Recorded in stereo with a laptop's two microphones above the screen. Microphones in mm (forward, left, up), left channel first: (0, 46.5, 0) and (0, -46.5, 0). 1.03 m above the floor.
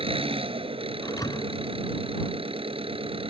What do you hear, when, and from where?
0.0 s an engine running: 85° right
1.0 s a thud: 40° left (ahead or behind)